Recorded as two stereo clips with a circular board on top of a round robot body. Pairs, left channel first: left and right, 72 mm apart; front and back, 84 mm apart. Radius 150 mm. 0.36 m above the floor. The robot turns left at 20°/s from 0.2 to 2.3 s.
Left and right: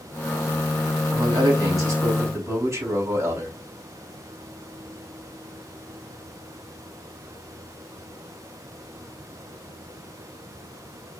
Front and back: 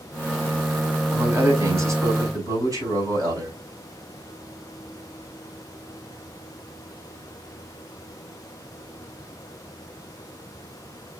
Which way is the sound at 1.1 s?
115° right.